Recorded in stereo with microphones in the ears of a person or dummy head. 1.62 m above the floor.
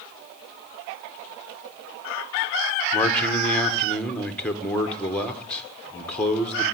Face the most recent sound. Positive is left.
turn(degrees=5)  # may be behind; listen again after turning